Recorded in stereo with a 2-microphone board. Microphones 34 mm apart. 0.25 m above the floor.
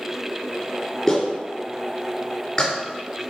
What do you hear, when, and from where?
1.1 s a clap: 15° left (ahead or behind), 3 m